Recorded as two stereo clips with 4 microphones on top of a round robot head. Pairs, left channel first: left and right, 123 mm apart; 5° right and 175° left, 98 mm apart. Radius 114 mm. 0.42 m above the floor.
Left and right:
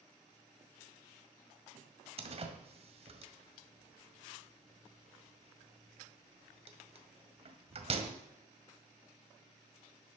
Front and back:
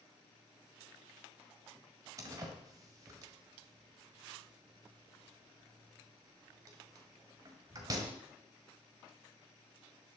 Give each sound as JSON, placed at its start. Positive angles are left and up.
{"t": 2.2, "sound": "a door slam", "azimuth_deg": -125, "distance_m": 1.8}